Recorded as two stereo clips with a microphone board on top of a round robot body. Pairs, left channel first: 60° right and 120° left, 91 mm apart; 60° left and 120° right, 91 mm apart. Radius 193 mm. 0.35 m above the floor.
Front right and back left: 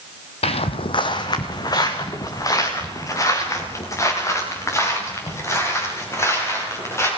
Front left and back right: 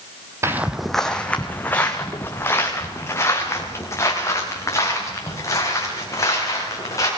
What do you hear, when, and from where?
0.4 s footsteps: 60° right, 0.7 m; by 7.1 s 5° left, 8.5 m